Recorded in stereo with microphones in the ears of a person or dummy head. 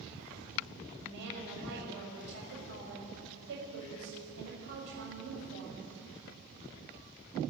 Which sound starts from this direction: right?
A woman speaking, at 1.0 s.